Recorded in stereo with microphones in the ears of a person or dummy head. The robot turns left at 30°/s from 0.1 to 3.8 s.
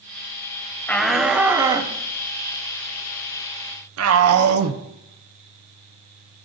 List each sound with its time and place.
0.9 s a shout: 5° left (ahead or behind), 1.2 m; by 4.8 s 80° right, 1.2 m